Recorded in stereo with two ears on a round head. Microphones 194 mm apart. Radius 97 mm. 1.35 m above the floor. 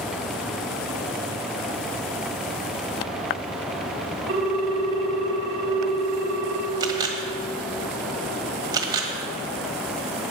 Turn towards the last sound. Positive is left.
turn(degrees=-20)  # may be behind; listen again after turning